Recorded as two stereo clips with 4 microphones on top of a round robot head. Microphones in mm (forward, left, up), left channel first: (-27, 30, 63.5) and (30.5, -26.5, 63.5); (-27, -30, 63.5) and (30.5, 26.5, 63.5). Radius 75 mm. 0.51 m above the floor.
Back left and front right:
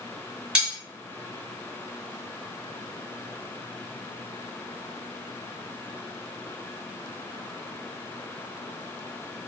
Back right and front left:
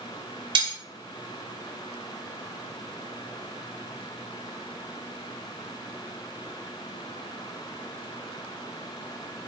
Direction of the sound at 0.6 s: 35° left.